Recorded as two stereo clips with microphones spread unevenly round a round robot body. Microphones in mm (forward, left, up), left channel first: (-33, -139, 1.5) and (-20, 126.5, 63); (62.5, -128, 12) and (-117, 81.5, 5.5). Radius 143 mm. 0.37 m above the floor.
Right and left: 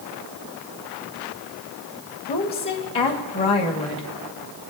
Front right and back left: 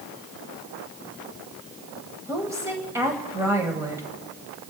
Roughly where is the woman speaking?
Behind right.